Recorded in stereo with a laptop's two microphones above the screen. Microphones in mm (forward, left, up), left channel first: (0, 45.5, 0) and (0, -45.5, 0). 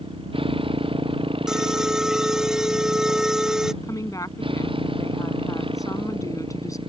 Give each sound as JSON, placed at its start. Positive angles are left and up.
{"t": 0.0, "sound": "a motorcycle", "side_deg": -65}
{"t": 1.5, "sound": "an alarm", "side_deg": -5}
{"t": 3.8, "sound": "a woman speaking", "side_deg": 35}